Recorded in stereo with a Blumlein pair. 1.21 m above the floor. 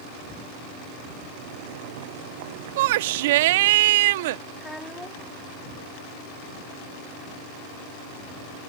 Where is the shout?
55° right.